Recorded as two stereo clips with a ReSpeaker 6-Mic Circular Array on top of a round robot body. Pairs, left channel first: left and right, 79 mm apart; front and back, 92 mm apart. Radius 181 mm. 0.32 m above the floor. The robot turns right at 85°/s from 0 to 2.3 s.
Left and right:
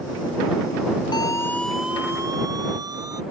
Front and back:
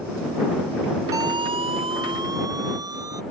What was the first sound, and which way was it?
A siren, 125° left.